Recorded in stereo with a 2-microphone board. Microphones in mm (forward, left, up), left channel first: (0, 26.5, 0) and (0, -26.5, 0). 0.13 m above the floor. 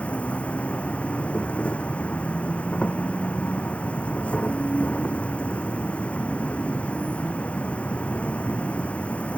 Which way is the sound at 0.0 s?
25° left (ahead or behind).